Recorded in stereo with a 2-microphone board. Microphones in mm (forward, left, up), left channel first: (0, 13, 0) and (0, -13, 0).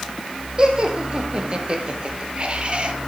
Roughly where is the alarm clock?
No alarm clock in this recording.